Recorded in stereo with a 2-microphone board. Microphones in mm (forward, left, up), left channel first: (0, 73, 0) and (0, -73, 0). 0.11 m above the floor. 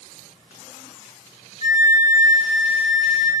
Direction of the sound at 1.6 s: 55° left (ahead or behind).